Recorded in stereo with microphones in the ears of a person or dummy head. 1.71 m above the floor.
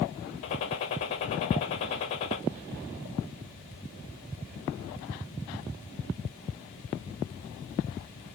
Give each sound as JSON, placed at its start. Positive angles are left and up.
{"t": 0.4, "sound": "a gunshot", "side_deg": 30, "distance_m": 0.8}